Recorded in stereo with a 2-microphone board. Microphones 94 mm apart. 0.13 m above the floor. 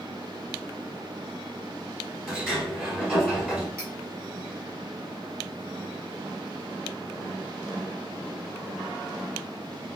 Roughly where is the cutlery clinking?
Right.